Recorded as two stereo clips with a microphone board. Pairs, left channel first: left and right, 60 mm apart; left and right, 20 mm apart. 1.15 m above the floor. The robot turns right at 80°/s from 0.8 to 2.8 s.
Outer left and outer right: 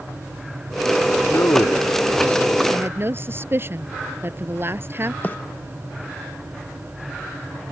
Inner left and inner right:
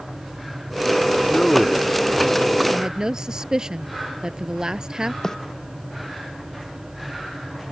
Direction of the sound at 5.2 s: 35° left (ahead or behind).